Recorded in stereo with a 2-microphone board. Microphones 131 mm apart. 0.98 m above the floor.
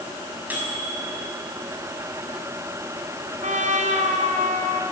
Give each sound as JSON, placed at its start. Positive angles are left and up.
{"t": 0.5, "sound": "a microwave", "side_deg": -15, "distance_m": 5.5}
{"t": 3.4, "sound": "a trumpet", "side_deg": -70, "distance_m": 3.0}